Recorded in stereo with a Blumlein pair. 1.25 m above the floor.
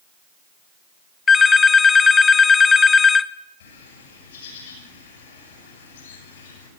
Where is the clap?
No clap in this recording.